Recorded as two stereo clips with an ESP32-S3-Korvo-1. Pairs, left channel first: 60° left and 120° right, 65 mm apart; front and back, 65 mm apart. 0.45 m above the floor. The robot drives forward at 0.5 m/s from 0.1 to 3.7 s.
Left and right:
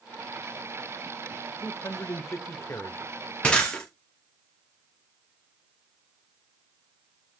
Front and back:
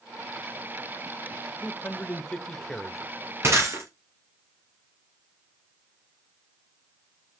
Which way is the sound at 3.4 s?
130° left.